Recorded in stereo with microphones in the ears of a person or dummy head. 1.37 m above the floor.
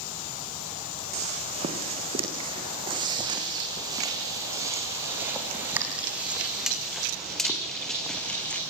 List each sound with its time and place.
1.1 s footsteps: 40° right (ahead or behind), 4.5 m; by 8.6 s 5° left (ahead or behind), 5 m